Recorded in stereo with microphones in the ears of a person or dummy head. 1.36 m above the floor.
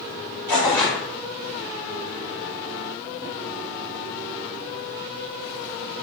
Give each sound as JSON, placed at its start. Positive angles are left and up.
{"t": 0.5, "sound": "tearing paper", "side_deg": 15, "distance_m": 1.3}